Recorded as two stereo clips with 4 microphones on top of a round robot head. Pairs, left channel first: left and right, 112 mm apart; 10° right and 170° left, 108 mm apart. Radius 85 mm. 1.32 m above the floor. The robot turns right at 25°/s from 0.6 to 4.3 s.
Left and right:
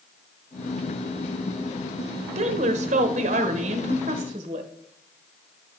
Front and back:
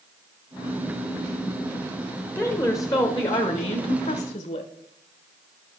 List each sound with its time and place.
2.4 s a woman speaking: 85° right, 0.8 m; by 4.7 s 40° right, 0.8 m